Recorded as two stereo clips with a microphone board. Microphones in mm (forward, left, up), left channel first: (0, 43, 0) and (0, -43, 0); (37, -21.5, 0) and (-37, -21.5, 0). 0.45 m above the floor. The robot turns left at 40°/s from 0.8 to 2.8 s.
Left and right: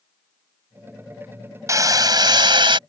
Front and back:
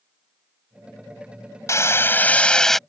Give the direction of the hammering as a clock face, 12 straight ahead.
1 o'clock.